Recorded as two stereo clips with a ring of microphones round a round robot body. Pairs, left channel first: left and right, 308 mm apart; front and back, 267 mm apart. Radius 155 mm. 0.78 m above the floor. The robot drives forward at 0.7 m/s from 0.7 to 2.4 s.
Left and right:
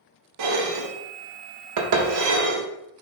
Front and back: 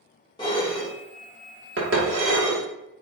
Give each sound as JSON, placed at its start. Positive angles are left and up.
{"t": 0.4, "sound": "dishes clattering", "azimuth_deg": -75, "distance_m": 0.9}